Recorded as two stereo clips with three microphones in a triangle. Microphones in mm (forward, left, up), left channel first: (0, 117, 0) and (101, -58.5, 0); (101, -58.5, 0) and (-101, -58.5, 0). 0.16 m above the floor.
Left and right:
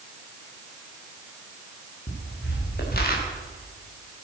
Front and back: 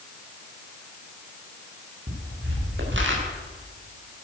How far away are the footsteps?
About 5 m.